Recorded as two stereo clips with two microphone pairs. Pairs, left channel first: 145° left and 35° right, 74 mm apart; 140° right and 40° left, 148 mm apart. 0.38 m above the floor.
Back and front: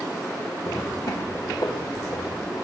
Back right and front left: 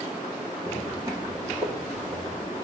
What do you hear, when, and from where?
0.7 s footsteps: 110° left, 1.4 m; by 2.5 s 100° left, 3.5 m